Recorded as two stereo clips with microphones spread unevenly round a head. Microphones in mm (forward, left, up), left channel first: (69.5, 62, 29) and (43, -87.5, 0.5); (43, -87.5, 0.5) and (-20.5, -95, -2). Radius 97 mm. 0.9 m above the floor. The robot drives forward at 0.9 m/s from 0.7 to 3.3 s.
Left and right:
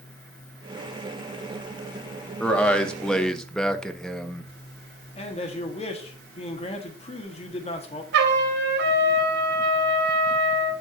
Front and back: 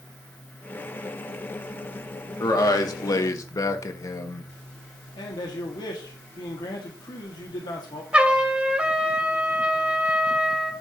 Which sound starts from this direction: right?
A trumpet, at 8.1 s.